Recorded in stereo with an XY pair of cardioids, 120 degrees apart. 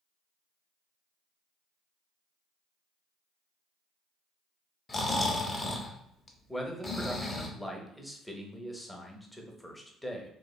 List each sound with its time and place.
4.9 s snoring: 20° left, 0.6 m
6.5 s a man speaking: 5° left, 0.6 m